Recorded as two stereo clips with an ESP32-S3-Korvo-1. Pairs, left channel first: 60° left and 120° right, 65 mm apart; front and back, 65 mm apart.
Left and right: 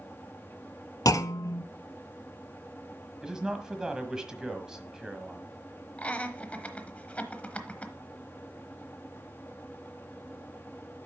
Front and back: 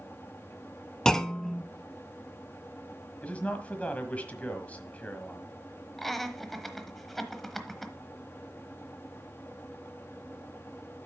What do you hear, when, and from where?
1.1 s a clunk: 80° left, 0.5 m
3.2 s a man speaking: 50° right, 1.4 m
6.0 s laughter: 80° left, 1.0 m